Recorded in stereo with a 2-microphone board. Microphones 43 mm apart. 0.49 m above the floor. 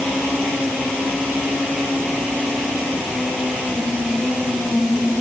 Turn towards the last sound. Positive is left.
No sound to turn to.